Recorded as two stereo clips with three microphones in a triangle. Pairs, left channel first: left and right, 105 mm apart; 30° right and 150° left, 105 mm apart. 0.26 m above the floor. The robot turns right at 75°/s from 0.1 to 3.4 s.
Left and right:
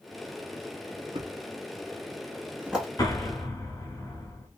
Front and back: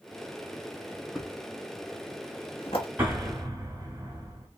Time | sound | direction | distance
1.1 | a thud | 125° right | 1.1 m
3.0 | an explosion | 85° left | 1.2 m